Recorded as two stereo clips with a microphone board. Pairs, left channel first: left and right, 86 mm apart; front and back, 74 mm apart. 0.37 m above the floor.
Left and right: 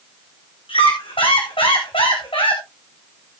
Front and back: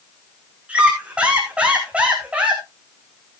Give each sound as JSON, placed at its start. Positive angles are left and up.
{"t": 0.7, "sound": "a squeak", "azimuth_deg": 105, "distance_m": 3.0}